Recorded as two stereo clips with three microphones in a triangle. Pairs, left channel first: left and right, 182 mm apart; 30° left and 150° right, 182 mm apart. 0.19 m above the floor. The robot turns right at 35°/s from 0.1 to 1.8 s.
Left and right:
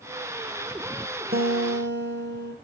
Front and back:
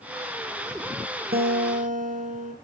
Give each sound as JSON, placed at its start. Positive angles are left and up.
{"t": 1.3, "sound": "a guitar", "azimuth_deg": -120, "distance_m": 2.0}